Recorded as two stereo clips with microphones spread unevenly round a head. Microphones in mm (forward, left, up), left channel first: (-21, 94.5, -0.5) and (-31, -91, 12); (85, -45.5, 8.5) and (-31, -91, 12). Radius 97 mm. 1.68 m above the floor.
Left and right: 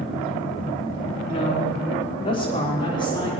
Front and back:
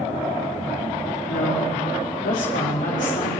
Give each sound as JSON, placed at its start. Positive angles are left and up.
{"t": 1.3, "sound": "a woman speaking", "azimuth_deg": 25, "distance_m": 4.5}